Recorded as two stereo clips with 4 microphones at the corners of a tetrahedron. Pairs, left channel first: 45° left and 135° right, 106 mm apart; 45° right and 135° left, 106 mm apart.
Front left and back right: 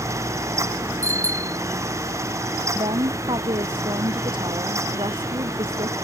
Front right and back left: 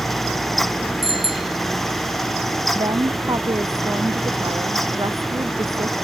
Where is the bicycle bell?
165° left.